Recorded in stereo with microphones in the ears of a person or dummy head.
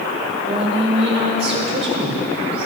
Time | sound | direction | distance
0.5 | a woman speaking | 35° right (ahead or behind) | 2.5 m